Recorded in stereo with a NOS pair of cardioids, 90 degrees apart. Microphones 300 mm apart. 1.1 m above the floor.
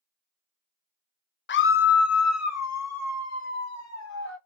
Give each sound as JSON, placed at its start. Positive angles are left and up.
{"t": 1.5, "sound": "a scream", "azimuth_deg": 40, "distance_m": 0.6}